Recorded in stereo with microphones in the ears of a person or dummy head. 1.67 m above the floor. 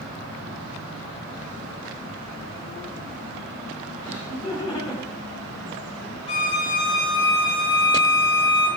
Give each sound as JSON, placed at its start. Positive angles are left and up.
{"t": 4.0, "sound": "laughter", "side_deg": 15, "distance_m": 5.5}
{"t": 6.3, "sound": "a violin", "side_deg": 30, "distance_m": 2.5}